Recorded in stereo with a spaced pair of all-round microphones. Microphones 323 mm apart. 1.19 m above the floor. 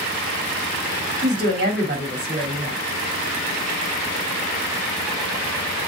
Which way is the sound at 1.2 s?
30° right (ahead or behind).